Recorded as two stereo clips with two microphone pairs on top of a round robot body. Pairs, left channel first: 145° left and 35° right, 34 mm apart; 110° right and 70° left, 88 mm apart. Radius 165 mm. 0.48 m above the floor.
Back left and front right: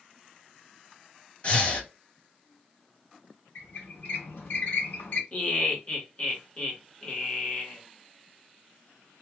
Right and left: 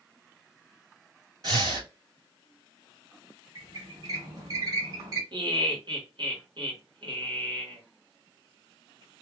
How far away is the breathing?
About 2 m.